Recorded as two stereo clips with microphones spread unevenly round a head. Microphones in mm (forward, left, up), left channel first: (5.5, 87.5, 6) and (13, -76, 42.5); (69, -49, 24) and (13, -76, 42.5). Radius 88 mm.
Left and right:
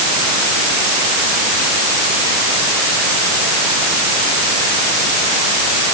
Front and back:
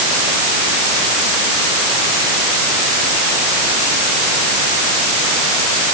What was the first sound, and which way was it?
Only background noise.